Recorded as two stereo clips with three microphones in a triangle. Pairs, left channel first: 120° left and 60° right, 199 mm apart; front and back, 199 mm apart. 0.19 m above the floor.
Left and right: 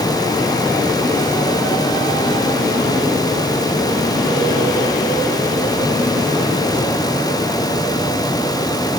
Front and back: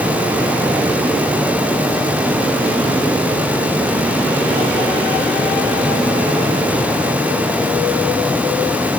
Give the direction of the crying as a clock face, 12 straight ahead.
I don't hear crying.